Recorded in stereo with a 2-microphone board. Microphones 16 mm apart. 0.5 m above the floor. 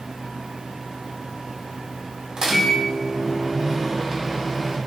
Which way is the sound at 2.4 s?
45° right (ahead or behind).